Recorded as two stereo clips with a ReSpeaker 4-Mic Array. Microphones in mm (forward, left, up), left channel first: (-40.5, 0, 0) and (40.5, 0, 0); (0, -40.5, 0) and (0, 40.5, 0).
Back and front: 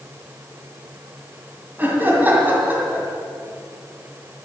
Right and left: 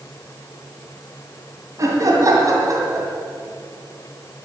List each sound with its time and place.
1.8 s laughter: 60° left, 2 m